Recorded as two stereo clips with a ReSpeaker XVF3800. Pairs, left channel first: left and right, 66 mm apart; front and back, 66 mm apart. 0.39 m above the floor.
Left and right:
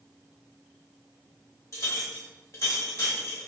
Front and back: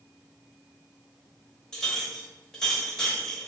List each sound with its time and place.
1.7 s a clink: 75° left, 0.8 m